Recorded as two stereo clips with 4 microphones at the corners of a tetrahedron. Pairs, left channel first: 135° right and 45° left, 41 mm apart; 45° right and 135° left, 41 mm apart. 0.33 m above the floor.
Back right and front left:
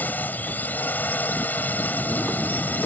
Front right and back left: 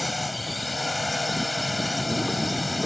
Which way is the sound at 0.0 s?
135° right.